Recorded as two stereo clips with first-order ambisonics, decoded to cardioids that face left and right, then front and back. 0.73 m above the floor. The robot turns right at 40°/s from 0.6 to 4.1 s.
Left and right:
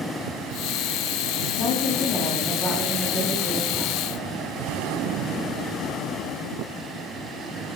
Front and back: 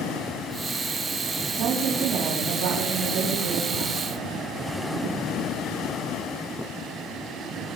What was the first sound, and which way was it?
A woman speaking, 140° left.